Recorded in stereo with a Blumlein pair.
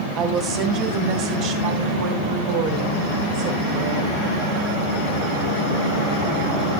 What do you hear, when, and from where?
0.2 s a woman speaking: 30° right, 2.5 m; by 4.2 s 45° right, 6.5 m